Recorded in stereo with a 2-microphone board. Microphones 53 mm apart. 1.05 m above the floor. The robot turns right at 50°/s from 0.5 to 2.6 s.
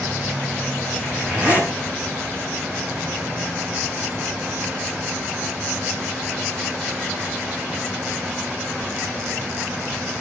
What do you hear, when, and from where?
1.0 s a zipper: straight behind, 7.5 m; by 1.7 s 140° right, 7.5 m